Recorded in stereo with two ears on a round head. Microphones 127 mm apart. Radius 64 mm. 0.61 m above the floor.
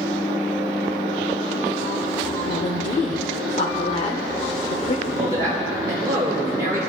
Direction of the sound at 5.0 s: 25° right (ahead or behind).